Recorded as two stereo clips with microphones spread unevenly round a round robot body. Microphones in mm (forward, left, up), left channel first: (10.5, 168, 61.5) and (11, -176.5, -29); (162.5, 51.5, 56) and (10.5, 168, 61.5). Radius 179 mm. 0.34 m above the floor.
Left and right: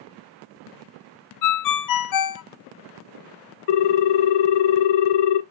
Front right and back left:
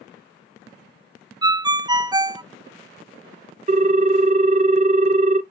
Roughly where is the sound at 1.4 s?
Left.